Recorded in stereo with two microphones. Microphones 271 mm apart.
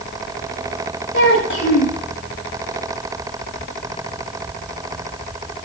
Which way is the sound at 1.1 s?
45° left (ahead or behind).